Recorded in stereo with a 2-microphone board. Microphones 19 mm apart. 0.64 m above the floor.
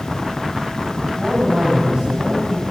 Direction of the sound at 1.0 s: 50° right (ahead or behind).